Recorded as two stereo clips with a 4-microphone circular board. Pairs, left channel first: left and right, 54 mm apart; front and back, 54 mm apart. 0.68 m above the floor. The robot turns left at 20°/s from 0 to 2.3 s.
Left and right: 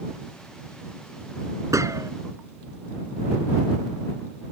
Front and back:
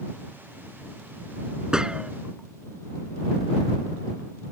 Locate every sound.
1.7 s a gunshot: 105° right; by 2.1 s 110° right